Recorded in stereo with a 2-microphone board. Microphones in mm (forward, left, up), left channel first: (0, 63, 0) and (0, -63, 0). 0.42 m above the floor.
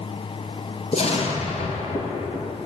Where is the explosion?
50° left (ahead or behind), 3 m.